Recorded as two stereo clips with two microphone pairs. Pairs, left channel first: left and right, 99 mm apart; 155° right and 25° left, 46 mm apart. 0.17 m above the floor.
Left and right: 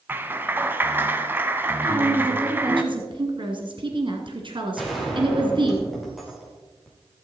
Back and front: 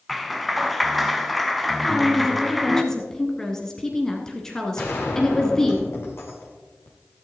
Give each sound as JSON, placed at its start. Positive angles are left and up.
{"t": 0.1, "sound": "a clap", "azimuth_deg": -75, "distance_m": 1.0}
{"t": 1.8, "sound": "a woman speaking", "azimuth_deg": -80, "distance_m": 1.9}
{"t": 4.8, "sound": "a gunshot", "azimuth_deg": 180, "distance_m": 4.0}